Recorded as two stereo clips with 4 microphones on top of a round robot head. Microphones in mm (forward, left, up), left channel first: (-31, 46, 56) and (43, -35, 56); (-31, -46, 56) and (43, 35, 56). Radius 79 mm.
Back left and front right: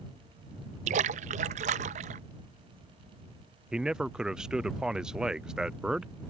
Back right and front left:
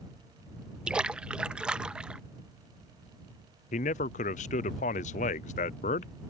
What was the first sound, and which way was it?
A splash, 35° right.